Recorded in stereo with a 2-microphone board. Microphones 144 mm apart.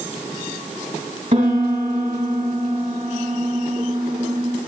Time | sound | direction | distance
1.3 | a piano | 55° right (ahead or behind) | 2.5 m